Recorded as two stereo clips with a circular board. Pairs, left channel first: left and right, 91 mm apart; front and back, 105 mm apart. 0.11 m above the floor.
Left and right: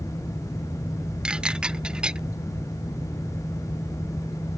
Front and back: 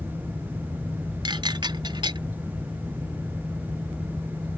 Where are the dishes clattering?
165° right.